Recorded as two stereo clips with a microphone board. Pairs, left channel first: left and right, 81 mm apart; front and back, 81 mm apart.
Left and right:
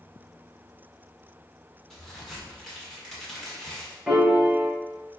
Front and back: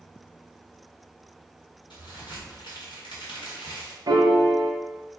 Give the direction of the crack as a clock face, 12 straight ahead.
12 o'clock.